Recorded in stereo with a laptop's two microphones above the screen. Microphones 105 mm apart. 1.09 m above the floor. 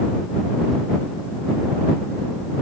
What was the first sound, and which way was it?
Only background noise.